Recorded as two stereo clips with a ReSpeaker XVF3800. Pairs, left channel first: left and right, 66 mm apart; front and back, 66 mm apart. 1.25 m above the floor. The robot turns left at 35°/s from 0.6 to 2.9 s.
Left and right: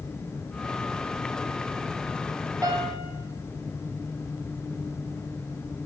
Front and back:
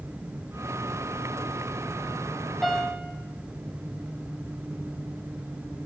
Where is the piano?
85° right, 1.1 m; by 3.1 s 95° right, 1.1 m.